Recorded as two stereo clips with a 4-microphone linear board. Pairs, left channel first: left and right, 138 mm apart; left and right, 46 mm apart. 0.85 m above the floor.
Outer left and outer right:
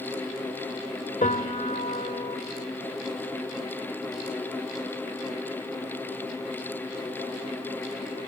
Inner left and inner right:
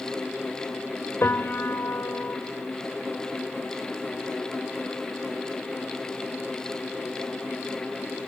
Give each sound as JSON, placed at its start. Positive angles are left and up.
{"t": 1.2, "sound": "a piano", "side_deg": 70, "distance_m": 1.5}